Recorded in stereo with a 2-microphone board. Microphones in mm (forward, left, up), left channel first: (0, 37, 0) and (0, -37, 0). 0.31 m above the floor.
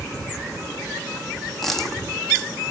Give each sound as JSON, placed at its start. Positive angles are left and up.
{"t": 1.6, "sound": "a dropped coin", "side_deg": 5, "distance_m": 1.3}